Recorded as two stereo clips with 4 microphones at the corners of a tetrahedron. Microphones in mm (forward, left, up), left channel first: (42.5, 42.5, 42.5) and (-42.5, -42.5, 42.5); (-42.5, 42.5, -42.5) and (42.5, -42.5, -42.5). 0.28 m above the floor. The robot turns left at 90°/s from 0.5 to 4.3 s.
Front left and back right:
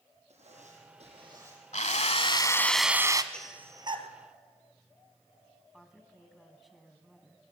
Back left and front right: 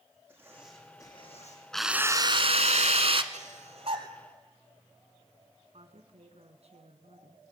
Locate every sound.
0.3 s writing: 120° right, 6.5 m; by 1.6 s 140° left, 6.5 m
1.7 s a drill: 50° left, 1.1 m; by 3.2 s 85° right, 1.1 m
3.3 s breathing: 35° right, 1.7 m; by 4.1 s 105° right, 1.7 m
5.7 s a woman speaking: 45° right, 3 m